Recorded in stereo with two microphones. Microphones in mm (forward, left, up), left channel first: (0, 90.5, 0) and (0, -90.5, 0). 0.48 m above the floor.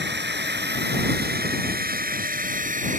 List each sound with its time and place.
0.0 s a drone: 75° right (ahead or behind); by 3.0 s 45° right (ahead or behind)